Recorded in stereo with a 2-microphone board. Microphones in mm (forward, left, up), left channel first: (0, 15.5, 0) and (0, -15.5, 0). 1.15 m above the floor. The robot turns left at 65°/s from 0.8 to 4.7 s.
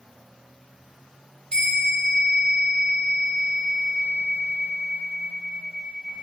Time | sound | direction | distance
1.5 | a bell | 145° left | 1.4 m